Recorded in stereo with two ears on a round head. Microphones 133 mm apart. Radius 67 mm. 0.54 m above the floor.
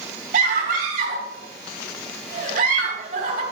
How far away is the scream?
About 3.5 m.